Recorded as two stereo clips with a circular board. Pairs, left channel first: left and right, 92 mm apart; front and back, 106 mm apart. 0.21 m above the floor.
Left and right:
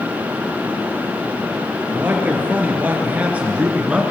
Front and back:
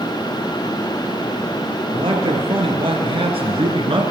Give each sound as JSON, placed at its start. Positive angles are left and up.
{"t": 1.9, "sound": "a man speaking", "azimuth_deg": -155, "distance_m": 3.5}